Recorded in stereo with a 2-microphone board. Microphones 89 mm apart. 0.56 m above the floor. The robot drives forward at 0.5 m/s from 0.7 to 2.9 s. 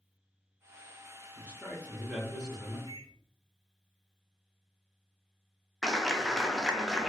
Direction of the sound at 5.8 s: Centre (ahead or behind).